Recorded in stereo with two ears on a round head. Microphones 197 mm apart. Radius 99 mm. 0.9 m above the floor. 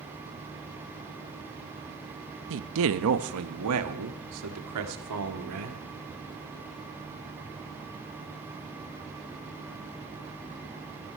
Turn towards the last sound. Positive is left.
turn(degrees=-80)